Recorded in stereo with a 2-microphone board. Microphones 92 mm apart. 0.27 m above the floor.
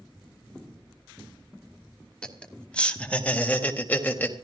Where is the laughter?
10° left (ahead or behind), 2.5 m; by 4.3 s 20° left (ahead or behind), 1.5 m.